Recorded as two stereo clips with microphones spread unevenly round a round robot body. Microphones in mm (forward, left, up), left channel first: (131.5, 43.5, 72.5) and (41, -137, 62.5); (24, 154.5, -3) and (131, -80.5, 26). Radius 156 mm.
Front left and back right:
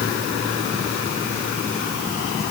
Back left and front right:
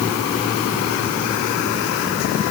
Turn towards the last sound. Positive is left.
No sound to turn to.